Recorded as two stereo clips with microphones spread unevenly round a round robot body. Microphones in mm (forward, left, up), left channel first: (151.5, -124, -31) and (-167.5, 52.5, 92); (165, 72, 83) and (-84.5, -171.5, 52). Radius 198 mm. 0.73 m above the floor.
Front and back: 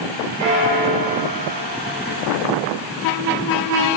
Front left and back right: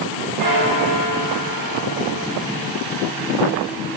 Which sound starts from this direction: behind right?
A bell, at 0.4 s.